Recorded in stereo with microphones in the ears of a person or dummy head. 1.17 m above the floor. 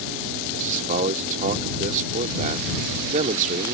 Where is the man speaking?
45° right (ahead or behind).